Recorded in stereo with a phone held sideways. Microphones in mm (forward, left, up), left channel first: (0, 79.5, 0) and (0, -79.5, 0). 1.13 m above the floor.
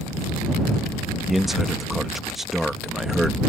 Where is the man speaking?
Centre (ahead or behind).